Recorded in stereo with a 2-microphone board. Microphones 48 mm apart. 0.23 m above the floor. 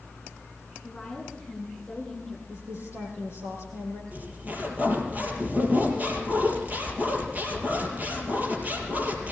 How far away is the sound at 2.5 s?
About 7 m.